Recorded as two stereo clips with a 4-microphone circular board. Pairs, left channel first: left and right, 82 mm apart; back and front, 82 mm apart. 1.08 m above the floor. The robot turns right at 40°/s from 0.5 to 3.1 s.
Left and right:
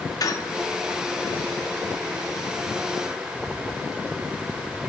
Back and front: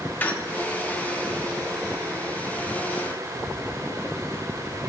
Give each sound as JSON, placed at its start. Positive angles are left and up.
{"t": 0.2, "sound": "a squeak", "azimuth_deg": 115, "distance_m": 0.7}